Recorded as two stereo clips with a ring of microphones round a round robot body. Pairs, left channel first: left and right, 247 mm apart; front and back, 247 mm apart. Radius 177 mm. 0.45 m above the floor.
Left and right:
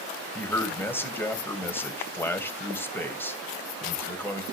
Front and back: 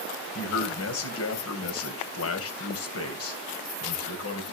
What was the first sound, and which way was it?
A man speaking, 10° left.